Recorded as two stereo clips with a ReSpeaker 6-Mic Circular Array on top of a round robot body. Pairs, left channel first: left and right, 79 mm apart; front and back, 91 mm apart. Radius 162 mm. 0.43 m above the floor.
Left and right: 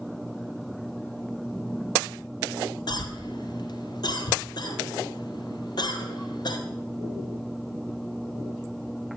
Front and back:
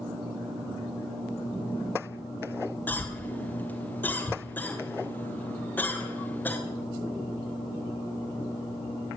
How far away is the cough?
About 2.5 m.